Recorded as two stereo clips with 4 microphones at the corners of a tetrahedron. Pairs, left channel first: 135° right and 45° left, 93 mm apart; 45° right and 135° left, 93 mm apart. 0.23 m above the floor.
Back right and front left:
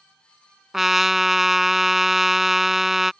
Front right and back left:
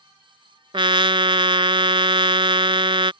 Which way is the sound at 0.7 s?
130° left.